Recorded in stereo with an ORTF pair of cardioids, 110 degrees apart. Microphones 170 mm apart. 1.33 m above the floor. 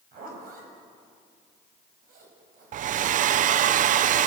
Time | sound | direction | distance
0.1 | a zipper | 60° right | 6 m
2.7 | a hair dryer | 50° right | 0.5 m